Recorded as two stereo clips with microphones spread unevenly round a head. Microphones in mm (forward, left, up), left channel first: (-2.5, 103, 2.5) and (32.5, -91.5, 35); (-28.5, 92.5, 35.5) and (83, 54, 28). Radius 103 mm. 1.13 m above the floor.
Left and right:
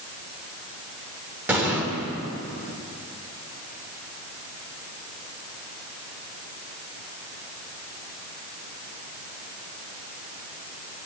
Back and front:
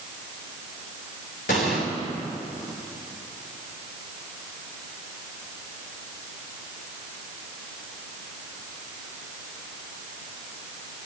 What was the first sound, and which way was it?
An explosion, 160° right.